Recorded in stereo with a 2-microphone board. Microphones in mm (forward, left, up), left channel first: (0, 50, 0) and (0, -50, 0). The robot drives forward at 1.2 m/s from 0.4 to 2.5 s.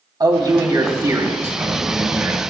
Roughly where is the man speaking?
Right.